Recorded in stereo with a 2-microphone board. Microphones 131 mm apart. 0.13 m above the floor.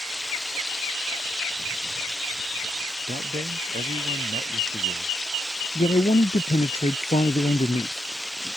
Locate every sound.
0.0 s running water: 5° left (ahead or behind)
3.1 s a man speaking: 85° right
5.8 s a man speaking: 55° left (ahead or behind)